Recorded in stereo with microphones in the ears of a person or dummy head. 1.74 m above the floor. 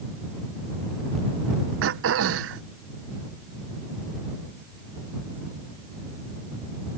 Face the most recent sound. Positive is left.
turn(degrees=-75)  # may be behind; listen again after turning